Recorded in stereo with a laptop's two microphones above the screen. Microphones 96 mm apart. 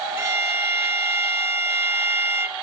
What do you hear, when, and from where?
0.2 s a violin: 25° right (ahead or behind), 1.1 m